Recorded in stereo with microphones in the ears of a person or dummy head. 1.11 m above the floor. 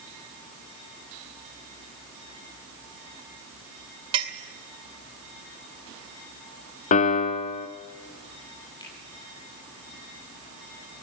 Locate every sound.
4.1 s a clink: 25° right (ahead or behind), 2 m
6.9 s a piano: 40° left (ahead or behind), 1.2 m
8.8 s a finger snap: 25° left (ahead or behind), 10 m